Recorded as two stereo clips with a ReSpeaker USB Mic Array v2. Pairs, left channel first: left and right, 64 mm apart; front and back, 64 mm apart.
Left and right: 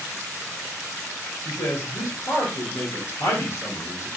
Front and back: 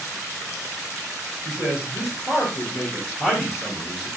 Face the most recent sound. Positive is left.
turn(degrees=110)